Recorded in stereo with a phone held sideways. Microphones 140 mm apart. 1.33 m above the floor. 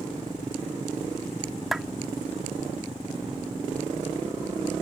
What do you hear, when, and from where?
1.7 s a clap: centre (ahead or behind)